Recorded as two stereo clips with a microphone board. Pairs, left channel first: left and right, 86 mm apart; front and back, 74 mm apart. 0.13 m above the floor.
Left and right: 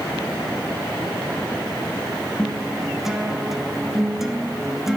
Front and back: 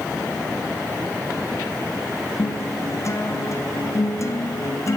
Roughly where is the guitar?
Ahead.